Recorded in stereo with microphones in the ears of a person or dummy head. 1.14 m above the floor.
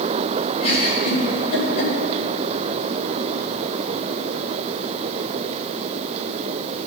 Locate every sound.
0.6 s a giggle: 45° left (ahead or behind), 4.5 m